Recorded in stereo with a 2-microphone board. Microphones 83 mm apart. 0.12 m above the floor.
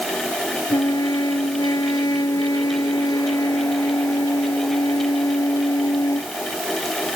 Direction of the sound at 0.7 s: 55° left (ahead or behind).